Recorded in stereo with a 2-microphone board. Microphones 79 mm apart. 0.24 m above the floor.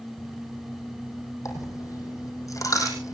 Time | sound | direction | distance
1.4 | a dropped coin | 45° left (ahead or behind) | 4.5 m